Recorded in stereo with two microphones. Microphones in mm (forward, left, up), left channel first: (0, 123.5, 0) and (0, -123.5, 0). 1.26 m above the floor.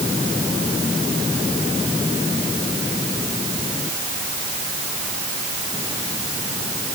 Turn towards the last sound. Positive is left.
No sound to turn to.